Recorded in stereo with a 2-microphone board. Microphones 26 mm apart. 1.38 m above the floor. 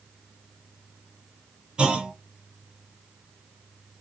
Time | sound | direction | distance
1.8 | a clunk | 35° right (ahead or behind) | 0.6 m